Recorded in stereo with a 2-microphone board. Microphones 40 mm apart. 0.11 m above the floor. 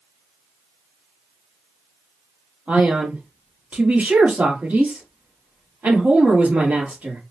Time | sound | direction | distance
2.7 | a man speaking | 45° right (ahead or behind) | 2.5 m